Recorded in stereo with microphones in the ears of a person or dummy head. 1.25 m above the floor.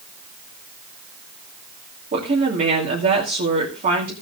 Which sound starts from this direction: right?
A woman speaking, at 2.1 s.